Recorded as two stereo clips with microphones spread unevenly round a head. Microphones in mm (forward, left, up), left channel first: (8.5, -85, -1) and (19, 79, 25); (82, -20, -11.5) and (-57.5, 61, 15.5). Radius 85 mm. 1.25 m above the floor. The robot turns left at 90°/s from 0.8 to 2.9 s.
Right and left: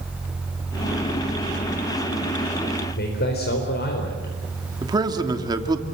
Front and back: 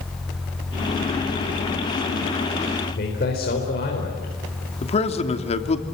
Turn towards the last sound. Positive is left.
turn(degrees=20)